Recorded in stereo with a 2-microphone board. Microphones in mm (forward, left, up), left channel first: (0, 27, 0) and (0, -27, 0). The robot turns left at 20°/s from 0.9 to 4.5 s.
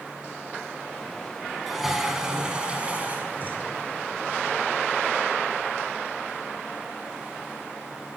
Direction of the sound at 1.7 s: 5° right.